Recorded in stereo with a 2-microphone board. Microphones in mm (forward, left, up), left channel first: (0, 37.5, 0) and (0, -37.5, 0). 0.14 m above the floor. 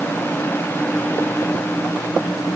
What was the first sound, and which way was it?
Only background noise.